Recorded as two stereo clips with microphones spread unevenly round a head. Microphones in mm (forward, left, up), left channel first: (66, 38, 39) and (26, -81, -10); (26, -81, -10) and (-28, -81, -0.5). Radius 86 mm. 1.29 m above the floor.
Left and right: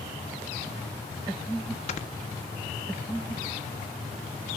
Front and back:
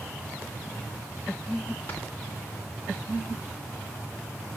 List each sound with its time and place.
1.9 s snoring: 75° left, 1.1 m